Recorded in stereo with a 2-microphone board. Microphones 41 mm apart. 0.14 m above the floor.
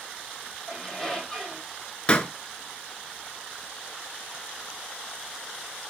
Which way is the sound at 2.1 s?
25° left (ahead or behind).